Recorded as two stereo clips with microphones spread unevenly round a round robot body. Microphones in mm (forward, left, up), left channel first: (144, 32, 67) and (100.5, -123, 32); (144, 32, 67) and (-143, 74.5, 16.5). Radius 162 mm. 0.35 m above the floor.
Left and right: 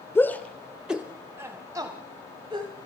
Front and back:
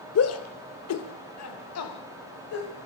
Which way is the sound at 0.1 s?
10° right.